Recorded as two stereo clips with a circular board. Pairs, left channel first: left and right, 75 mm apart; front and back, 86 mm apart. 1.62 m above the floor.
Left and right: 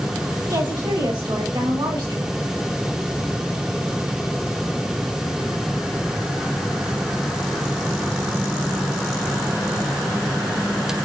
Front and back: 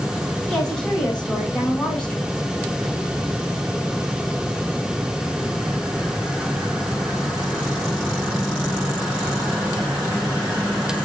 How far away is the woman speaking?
About 4.5 m.